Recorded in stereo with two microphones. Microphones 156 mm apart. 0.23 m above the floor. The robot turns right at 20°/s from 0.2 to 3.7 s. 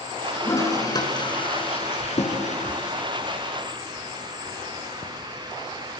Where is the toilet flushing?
15° left (ahead or behind), 3.5 m; by 5.1 s 65° left (ahead or behind), 3.5 m.